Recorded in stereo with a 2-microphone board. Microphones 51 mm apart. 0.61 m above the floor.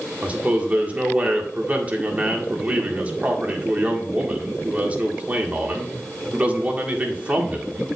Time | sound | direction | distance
0.2 | a man speaking | 30° right (ahead or behind) | 1.7 m